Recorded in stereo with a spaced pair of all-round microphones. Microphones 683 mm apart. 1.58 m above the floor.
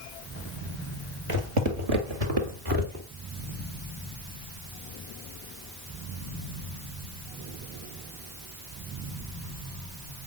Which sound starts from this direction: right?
Footsteps, at 1.3 s.